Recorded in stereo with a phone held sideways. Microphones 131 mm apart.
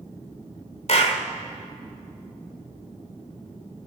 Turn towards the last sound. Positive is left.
turn(degrees=55)  # may be behind; listen again after turning